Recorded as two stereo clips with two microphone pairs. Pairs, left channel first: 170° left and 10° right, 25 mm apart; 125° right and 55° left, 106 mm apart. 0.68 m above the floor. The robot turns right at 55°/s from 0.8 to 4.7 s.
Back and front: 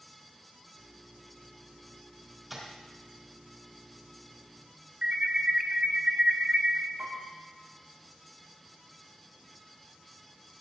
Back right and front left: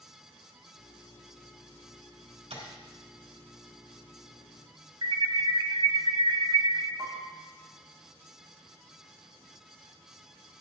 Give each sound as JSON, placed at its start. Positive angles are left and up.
{"t": 2.5, "sound": "tapping", "azimuth_deg": 65, "distance_m": 3.5}
{"t": 5.0, "sound": "an alarm", "azimuth_deg": 20, "distance_m": 0.6}
{"t": 7.0, "sound": "a piano", "azimuth_deg": -5, "distance_m": 3.5}